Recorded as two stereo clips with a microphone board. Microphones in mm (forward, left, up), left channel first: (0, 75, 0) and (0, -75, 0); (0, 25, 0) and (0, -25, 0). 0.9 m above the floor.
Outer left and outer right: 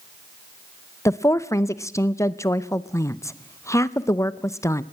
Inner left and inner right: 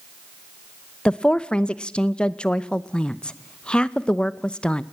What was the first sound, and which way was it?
A woman speaking, 20° left (ahead or behind).